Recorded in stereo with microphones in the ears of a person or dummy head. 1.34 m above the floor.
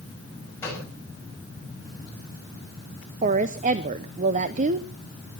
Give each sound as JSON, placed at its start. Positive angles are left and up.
{"t": 0.6, "sound": "a gunshot", "side_deg": 15, "distance_m": 7.0}
{"t": 3.2, "sound": "a woman speaking", "side_deg": -40, "distance_m": 0.7}